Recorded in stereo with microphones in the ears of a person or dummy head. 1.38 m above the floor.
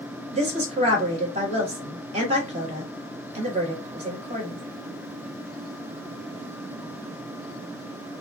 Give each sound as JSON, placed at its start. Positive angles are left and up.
{"t": 0.3, "sound": "a woman speaking", "side_deg": -35, "distance_m": 1.3}